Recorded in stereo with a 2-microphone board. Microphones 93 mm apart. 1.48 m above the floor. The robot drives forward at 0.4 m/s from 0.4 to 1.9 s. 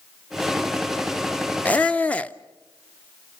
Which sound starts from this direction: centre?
A squeak, at 1.6 s.